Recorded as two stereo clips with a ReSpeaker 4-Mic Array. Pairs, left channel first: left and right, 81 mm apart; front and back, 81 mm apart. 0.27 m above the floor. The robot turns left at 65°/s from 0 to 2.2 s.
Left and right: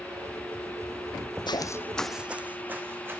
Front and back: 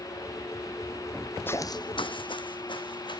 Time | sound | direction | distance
1.5 | footsteps | 65° left | 0.7 m